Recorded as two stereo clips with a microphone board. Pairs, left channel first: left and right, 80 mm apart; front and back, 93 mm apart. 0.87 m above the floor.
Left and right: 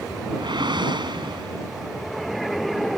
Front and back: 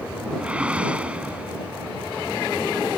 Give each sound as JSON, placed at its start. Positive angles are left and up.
{"t": 0.4, "sound": "a whoosh", "azimuth_deg": -100}